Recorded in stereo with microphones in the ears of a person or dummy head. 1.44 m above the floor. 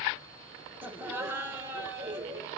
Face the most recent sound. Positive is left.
turn(degrees=-15)  # may be behind; listen again after turning